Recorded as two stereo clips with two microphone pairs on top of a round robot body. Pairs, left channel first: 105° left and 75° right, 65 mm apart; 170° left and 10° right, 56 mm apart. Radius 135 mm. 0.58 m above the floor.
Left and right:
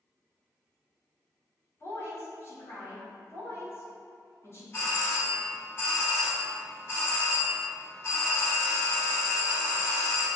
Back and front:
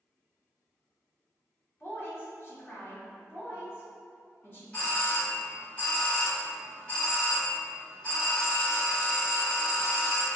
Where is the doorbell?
155° left, 2.0 m.